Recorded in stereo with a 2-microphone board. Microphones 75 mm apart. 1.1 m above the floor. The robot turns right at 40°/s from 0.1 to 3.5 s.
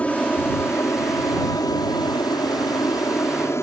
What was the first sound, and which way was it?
An aircraft, 15° left (ahead or behind).